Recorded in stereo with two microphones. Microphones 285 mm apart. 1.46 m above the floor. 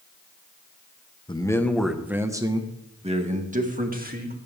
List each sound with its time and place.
1.3 s a man speaking: 15° left (ahead or behind), 1.3 m; by 4.4 s 30° right (ahead or behind), 3 m